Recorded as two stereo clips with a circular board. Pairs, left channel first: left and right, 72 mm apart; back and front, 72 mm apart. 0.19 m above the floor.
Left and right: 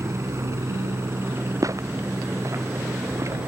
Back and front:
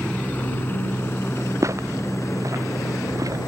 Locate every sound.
0.0 s a helicopter: 115° right; by 3.5 s 155° right
1.6 s footsteps: 45° right; by 3.4 s 40° right